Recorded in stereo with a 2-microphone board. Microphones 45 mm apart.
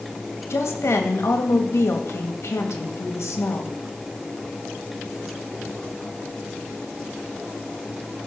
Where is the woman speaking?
75° left (ahead or behind), 2.0 m.